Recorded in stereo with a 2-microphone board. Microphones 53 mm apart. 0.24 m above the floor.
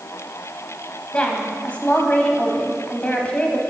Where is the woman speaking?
25° left (ahead or behind), 1.1 m.